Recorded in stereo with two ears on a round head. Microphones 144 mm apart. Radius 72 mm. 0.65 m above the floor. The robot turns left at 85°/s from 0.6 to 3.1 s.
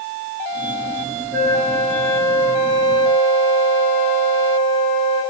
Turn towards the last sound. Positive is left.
turn(degrees=5)  # may be behind; listen again after turning